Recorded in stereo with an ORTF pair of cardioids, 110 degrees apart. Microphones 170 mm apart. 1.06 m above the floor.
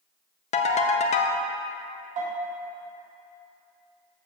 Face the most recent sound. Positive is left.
turn(degrees=-55)